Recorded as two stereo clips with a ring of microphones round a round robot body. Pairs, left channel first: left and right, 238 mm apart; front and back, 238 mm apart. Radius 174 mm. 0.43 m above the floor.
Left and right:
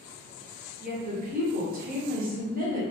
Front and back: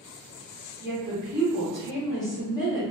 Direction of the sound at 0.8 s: 65° right.